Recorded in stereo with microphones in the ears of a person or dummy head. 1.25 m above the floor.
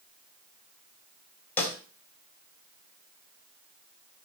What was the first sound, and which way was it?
A snare drum, 10° left (ahead or behind).